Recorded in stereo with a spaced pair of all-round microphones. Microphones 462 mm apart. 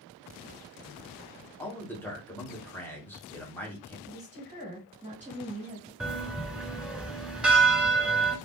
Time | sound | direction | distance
1.6 | a man speaking | 5° left (ahead or behind) | 1.3 m
4.1 | a woman speaking | 15° right (ahead or behind) | 2 m
6.0 | a bell | centre (ahead or behind) | 0.8 m